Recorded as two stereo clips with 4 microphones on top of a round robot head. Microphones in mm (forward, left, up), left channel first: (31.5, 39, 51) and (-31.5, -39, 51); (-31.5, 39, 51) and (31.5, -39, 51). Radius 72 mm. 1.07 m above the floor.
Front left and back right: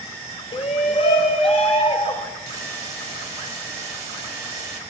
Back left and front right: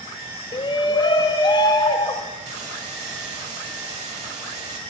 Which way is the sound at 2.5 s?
70° right.